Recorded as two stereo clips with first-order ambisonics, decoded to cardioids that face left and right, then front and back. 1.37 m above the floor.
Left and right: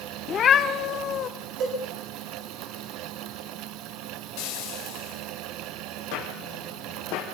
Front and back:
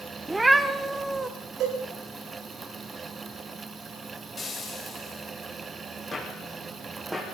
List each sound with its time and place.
0.3 s a cat meowing: 105° left, 1.1 m
1.6 s a cowbell: 135° right, 9 m
4.4 s frying: 75° left, 4.5 m
6.1 s footsteps: 75° left, 4 m; by 7.2 s 85° left, 3.5 m